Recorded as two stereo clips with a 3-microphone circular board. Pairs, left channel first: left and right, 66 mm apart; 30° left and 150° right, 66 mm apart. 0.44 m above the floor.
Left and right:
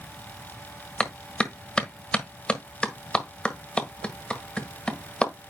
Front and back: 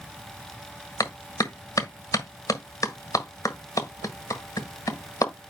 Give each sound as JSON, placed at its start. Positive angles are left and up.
{"t": 1.0, "sound": "a clap", "azimuth_deg": 20, "distance_m": 1.5}